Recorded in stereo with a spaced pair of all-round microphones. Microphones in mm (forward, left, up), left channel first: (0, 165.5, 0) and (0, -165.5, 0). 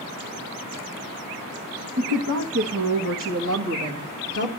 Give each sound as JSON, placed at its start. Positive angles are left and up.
{"t": 2.0, "sound": "a woman speaking", "side_deg": -70, "distance_m": 1.9}